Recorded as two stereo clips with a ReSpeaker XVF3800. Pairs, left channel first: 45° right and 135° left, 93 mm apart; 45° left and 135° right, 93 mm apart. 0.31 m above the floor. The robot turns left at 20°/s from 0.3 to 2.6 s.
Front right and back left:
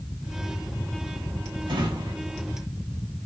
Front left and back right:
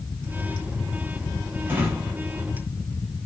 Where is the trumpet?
I don't hear a trumpet.